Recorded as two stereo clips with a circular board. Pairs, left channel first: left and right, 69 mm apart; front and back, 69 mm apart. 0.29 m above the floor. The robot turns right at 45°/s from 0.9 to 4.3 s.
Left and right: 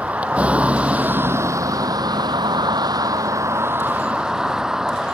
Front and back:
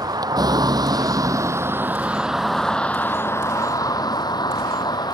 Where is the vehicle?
160° right; by 5.1 s 10° right.